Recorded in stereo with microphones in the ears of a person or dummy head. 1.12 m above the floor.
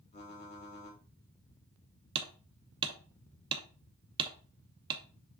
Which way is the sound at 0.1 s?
40° left (ahead or behind).